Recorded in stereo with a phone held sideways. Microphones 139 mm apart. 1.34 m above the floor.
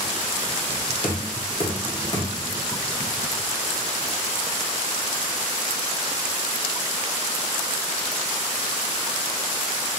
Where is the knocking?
40° left (ahead or behind), 0.9 m.